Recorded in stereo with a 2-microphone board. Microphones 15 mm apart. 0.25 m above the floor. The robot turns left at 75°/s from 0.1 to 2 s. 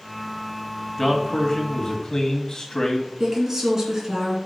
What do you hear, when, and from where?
1.0 s a man speaking: 175° left, 2.0 m; by 3.1 s 100° left, 2.0 m
3.2 s a woman speaking: 30° right (ahead or behind), 3 m